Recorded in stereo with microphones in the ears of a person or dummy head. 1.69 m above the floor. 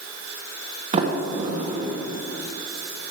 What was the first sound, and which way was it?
A sliding door, 40° right (ahead or behind).